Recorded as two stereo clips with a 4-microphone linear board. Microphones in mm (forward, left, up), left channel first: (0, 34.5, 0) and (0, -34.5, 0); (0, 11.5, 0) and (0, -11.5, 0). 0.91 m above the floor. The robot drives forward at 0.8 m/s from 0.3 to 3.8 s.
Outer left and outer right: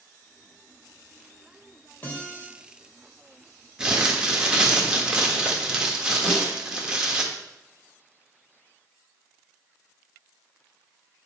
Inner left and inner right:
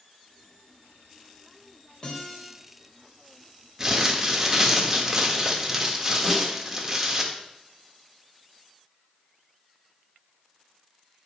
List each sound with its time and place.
2.0 s a guitar: 25° left (ahead or behind), 3.5 m
3.8 s crumpling: 10° right (ahead or behind), 1.4 m
6.2 s a snare drum: 10° left (ahead or behind), 4.5 m